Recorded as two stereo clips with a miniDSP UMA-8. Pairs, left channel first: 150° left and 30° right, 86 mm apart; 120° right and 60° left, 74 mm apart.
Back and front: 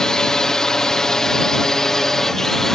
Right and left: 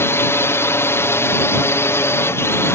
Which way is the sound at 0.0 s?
135° right.